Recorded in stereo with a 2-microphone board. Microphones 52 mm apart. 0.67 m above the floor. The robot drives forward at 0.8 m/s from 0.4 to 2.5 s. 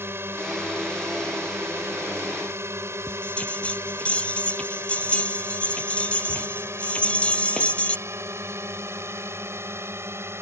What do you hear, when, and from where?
0.0 s a drone: 55° right (ahead or behind)
3.1 s a bell: 25° left (ahead or behind)